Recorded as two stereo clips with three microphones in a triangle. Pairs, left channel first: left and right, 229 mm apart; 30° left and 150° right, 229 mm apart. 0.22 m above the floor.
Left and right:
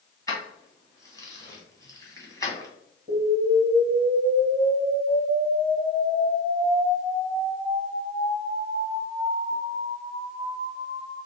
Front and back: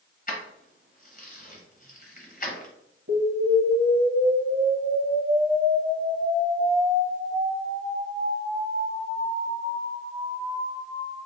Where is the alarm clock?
I don't hear an alarm clock.